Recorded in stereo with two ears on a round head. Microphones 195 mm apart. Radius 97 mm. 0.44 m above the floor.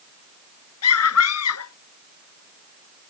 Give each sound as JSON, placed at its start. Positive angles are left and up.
{"t": 0.8, "sound": "a scream", "side_deg": 80}